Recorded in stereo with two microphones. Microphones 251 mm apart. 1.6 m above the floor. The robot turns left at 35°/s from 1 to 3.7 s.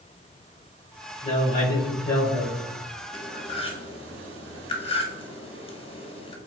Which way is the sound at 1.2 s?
115° left.